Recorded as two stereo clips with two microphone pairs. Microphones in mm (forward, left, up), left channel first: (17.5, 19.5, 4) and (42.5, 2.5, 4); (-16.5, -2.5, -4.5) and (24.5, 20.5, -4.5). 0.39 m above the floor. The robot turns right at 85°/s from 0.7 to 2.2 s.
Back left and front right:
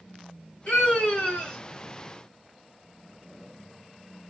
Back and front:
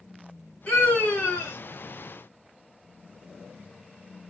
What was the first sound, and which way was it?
A scream, 140° left.